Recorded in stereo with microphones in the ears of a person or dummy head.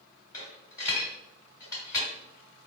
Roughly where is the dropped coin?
Centre.